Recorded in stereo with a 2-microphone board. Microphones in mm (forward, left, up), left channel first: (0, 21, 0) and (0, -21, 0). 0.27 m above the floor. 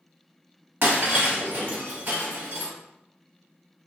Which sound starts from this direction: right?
Breaking glass, at 0.8 s.